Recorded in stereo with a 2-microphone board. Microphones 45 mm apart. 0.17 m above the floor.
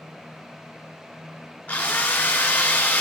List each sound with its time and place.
1.7 s a drill: 30° left (ahead or behind), 1.2 m